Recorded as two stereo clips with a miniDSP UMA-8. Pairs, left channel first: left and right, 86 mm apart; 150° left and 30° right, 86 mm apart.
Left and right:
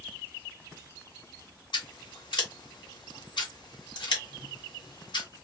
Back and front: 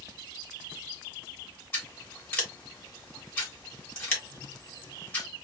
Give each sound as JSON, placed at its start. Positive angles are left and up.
{"t": 1.7, "sound": "scissors", "azimuth_deg": 85, "distance_m": 1.8}